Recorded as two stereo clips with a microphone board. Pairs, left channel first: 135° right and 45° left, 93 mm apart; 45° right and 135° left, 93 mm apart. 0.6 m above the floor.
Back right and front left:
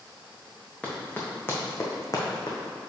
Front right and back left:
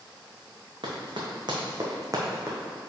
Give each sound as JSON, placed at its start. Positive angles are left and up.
{"t": 0.8, "sound": "running footsteps", "azimuth_deg": 150, "distance_m": 2.0}